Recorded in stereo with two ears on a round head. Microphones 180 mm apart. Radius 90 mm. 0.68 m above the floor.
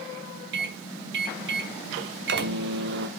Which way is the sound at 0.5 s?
60° right (ahead or behind).